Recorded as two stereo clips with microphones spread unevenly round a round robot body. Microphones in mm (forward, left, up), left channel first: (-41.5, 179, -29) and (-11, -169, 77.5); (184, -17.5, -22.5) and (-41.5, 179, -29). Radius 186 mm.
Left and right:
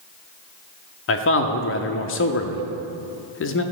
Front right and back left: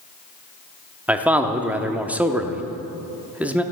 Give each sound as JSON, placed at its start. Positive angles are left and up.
{"t": 1.1, "sound": "a man speaking", "azimuth_deg": 55, "distance_m": 1.0}